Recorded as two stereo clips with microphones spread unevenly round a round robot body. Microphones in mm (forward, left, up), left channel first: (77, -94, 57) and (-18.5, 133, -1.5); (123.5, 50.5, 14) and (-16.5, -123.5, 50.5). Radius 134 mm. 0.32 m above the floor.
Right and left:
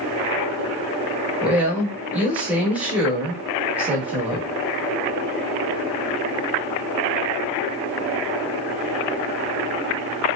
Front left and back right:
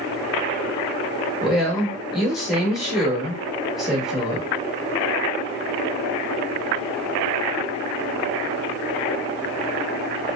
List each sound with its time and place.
1.4 s a woman speaking: 120° left, 1.0 m